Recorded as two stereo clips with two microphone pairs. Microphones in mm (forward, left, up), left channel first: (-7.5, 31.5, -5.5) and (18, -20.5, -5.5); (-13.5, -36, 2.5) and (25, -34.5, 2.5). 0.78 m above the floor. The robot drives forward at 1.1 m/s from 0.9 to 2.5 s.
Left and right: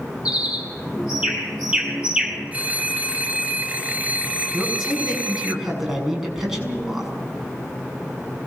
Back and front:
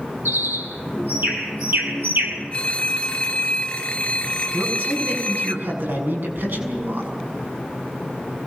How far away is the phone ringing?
About 1.5 m.